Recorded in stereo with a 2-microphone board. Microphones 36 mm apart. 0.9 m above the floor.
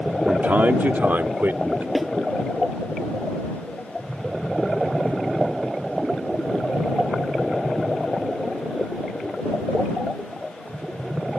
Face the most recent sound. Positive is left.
turn(degrees=-5)  # may be behind; listen again after turning